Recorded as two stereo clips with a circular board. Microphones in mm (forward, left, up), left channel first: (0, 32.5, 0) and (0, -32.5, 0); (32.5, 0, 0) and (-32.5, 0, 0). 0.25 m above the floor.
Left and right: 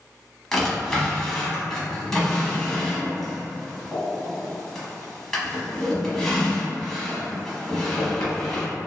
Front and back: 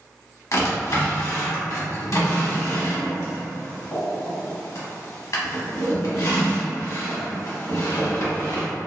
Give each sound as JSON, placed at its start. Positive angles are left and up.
{"t": 0.5, "sound": "a drawer", "azimuth_deg": 10, "distance_m": 0.8}